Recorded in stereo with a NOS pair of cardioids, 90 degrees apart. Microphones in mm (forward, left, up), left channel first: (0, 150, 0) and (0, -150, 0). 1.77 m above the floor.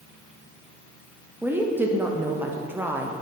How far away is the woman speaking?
About 0.9 m.